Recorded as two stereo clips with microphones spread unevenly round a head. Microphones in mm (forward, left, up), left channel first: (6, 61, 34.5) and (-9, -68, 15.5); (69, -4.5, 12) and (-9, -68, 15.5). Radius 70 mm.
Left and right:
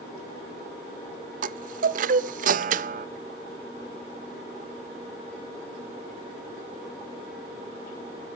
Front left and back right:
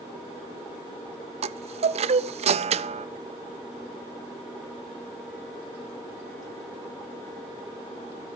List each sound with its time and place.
1.4 s a chime: 120° right, 0.6 m